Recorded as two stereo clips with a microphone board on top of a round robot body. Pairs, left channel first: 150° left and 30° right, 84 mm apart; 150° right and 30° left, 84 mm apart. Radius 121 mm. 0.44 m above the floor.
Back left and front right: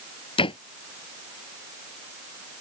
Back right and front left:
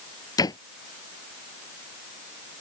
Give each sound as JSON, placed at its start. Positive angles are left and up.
{"t": 0.4, "sound": "a door slam", "azimuth_deg": 165}